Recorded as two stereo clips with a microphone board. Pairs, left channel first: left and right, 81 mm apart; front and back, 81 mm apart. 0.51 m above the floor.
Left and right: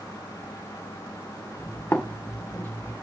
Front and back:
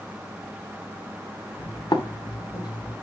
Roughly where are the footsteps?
Ahead left.